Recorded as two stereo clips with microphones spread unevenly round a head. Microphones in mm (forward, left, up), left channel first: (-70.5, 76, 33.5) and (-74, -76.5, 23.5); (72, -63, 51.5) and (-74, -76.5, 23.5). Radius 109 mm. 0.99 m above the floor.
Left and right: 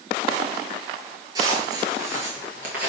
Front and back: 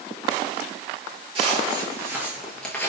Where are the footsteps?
140° right, 1.1 m; by 2.9 s 15° right, 1.0 m.